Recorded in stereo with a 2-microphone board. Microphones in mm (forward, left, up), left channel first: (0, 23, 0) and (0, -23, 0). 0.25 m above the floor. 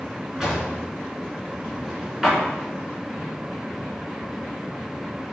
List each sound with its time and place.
0.4 s a drawer: 10° right (ahead or behind), 1.9 m